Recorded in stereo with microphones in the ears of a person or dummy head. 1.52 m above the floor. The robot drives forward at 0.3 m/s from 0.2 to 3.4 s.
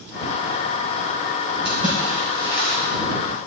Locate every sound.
1.6 s a splash: 30° right (ahead or behind), 4 m; by 2.8 s 25° right (ahead or behind), 4.5 m